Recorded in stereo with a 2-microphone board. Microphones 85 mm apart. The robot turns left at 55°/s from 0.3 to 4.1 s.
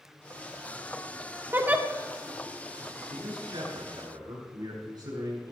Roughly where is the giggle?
Right.